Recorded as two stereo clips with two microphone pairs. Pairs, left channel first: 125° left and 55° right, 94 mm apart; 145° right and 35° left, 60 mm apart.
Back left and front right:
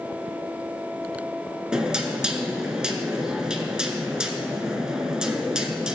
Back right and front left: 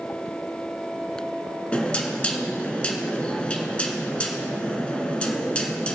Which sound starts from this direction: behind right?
Knocking, at 1.7 s.